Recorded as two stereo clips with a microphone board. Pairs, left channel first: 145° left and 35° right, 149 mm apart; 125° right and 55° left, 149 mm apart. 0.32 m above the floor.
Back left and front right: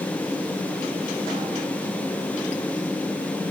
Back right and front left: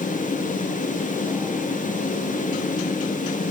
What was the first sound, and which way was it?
Only background noise.